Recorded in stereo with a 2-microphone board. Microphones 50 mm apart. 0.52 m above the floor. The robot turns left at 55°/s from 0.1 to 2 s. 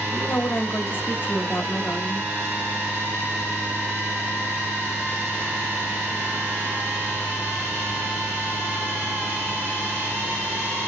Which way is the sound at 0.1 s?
135° left.